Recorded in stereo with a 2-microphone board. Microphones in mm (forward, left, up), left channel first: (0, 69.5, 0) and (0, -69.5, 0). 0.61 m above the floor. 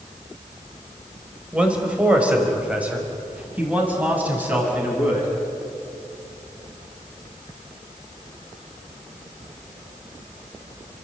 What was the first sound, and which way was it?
A man speaking, 5° right (ahead or behind).